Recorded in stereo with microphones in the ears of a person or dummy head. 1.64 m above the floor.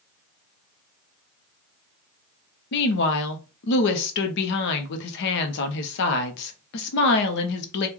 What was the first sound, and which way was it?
A woman speaking, 65° left (ahead or behind).